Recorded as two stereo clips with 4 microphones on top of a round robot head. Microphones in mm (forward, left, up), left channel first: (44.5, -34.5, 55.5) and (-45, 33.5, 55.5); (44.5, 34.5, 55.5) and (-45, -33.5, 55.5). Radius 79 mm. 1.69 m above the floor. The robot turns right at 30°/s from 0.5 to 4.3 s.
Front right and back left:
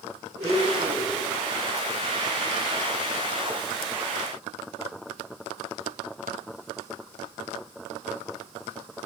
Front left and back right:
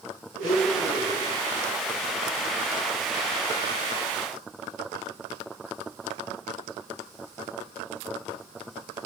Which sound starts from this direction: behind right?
A blender, at 0.4 s.